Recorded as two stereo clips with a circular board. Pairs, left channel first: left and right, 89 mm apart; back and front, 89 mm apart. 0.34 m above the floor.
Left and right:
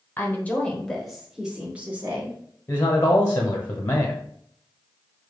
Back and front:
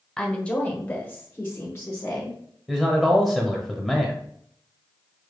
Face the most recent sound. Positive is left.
turn(degrees=80)